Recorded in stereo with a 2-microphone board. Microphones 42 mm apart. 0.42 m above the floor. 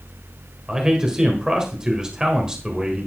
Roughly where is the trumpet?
I don't hear a trumpet.